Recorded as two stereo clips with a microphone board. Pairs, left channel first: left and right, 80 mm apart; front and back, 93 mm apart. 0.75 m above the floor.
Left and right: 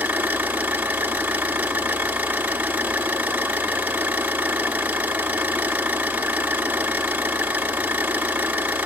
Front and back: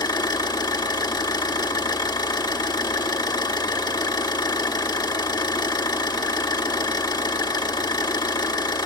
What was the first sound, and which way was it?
An engine running, 25° right.